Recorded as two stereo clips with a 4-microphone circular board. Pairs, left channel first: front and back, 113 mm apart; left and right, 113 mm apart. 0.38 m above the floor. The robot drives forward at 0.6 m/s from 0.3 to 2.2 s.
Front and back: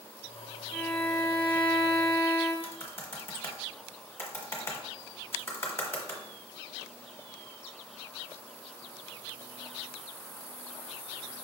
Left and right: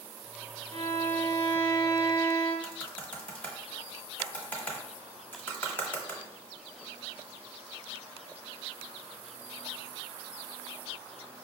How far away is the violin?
About 1.9 m.